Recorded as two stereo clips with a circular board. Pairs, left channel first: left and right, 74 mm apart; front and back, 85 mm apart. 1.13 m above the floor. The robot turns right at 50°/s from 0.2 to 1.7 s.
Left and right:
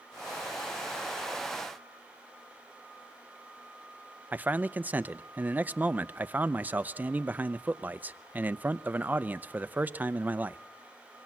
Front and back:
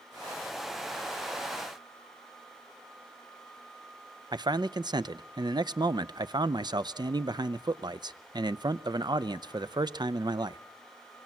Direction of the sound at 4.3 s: 155° right.